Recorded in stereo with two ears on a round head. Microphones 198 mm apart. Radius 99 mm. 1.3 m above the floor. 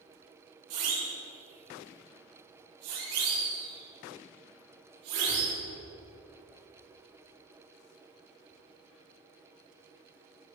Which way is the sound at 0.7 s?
80° right.